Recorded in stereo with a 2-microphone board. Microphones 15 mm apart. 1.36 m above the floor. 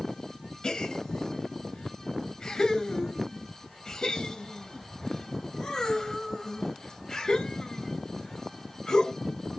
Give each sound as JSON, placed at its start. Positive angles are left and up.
{"t": 0.6, "sound": "a gasp", "side_deg": 65, "distance_m": 0.9}